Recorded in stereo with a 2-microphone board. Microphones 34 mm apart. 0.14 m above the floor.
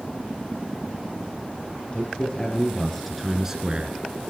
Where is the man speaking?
30° left (ahead or behind), 3 m; by 4.0 s 35° right (ahead or behind), 1.7 m.